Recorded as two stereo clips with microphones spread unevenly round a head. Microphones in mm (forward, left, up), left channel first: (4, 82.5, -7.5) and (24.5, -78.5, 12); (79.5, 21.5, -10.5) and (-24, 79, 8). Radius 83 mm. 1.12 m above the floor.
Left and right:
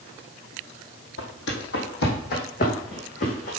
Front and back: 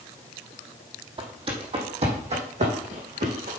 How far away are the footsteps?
About 3 m.